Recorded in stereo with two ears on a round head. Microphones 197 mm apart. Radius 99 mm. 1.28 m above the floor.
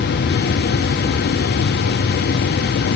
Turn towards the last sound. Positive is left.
No sound to turn to.